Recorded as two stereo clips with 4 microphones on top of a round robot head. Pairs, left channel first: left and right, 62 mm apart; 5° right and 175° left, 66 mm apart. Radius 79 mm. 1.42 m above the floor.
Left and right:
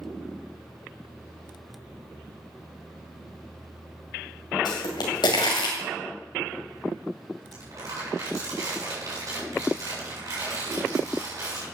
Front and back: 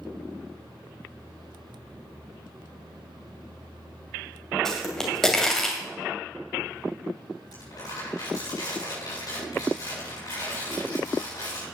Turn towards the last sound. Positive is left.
turn(degrees=-45)